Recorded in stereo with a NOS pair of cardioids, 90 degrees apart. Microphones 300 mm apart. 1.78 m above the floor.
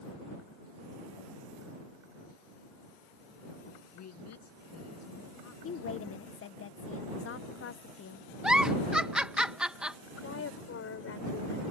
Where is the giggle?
5° right.